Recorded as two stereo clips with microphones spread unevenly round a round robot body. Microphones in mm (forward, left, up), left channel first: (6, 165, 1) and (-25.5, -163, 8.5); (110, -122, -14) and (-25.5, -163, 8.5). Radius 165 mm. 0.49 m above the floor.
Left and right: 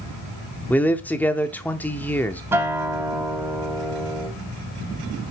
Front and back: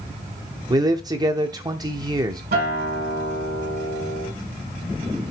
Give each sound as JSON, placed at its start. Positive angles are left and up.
{"t": 0.7, "sound": "a man speaking", "azimuth_deg": 155, "distance_m": 0.7}
{"t": 2.5, "sound": "a guitar", "azimuth_deg": 180, "distance_m": 3.0}